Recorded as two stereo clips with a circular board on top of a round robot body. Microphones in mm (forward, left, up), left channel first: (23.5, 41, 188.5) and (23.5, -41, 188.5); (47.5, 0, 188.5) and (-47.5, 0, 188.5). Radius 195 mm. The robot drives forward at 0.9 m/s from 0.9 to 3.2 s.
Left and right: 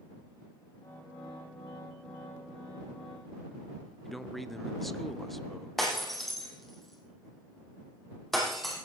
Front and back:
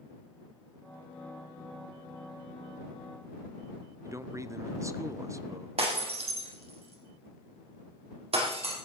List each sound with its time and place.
4.0 s a man speaking: 175° left, 1.4 m
5.8 s breaking glass: straight behind, 4.5 m